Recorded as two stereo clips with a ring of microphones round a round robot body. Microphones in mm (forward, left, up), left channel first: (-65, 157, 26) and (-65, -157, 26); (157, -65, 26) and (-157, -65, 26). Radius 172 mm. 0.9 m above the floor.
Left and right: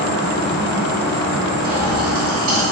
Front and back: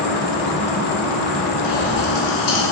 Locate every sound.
0.0 s an insect: 25° left, 1.3 m
1.6 s a pop: 40° right, 1.3 m